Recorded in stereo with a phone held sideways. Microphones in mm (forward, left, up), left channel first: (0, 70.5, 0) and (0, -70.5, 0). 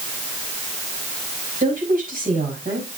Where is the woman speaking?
80° right, 5 m.